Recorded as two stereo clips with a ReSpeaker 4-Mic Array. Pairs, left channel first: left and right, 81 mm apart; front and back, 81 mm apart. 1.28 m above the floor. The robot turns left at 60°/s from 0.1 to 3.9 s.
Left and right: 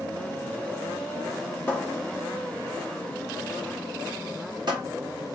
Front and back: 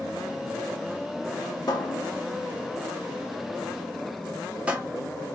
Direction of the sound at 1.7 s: 25° left.